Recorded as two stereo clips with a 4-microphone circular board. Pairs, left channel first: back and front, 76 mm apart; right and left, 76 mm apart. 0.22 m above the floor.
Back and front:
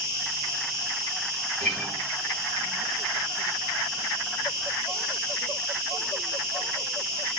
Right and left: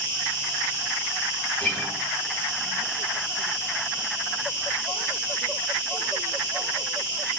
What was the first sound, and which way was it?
An insect, 45° right.